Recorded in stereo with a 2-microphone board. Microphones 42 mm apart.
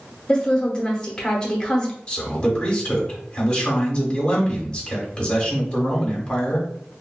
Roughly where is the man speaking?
Left.